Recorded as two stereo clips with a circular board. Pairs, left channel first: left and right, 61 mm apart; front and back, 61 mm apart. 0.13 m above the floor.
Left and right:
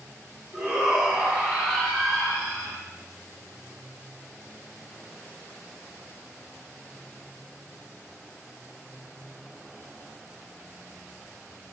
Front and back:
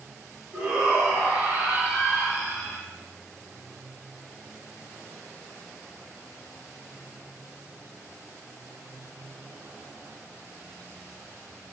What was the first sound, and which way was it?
A shout, 150° right.